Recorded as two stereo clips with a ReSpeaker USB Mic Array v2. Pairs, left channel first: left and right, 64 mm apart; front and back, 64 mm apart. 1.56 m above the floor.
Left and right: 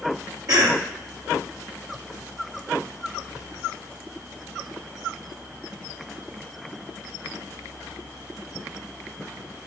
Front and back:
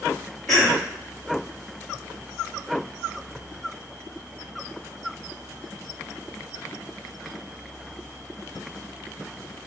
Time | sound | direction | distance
0.5 | a cough | 85° right | 0.7 m